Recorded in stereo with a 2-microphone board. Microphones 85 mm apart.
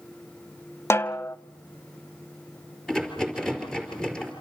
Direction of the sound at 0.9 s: 35° left (ahead or behind).